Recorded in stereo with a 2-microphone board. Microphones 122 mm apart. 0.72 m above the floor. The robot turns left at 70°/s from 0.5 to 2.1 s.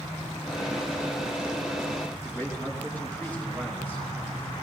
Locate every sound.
2.2 s a man speaking: 15° left (ahead or behind), 5 m